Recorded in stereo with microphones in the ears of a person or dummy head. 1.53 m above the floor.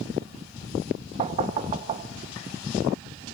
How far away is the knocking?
About 1.8 m.